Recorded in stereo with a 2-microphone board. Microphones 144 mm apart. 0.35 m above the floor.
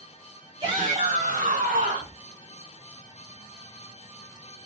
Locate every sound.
0.6 s a shout: 35° right (ahead or behind), 2.0 m; by 2.2 s 70° right (ahead or behind), 3.5 m